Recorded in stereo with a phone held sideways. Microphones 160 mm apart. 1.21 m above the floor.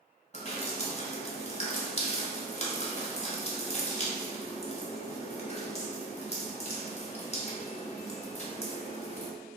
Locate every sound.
0.3 s dripping: 45° left (ahead or behind), 0.7 m